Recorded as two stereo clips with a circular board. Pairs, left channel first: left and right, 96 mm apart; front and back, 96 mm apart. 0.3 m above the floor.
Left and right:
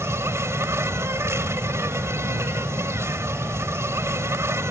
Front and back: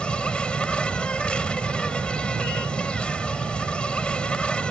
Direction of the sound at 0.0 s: 70° right.